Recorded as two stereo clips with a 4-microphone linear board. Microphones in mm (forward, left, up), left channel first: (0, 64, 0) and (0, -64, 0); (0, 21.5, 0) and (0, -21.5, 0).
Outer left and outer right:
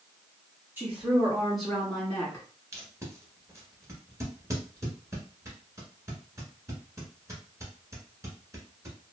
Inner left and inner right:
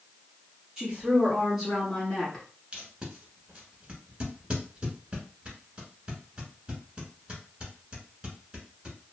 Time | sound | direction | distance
0.8 | a woman speaking | 15° right (ahead or behind) | 1.6 m
2.7 | tape being pulled | 25° right (ahead or behind) | 1.0 m